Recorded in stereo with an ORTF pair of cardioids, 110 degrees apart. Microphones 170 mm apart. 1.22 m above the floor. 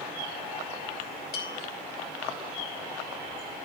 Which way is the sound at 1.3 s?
70° left.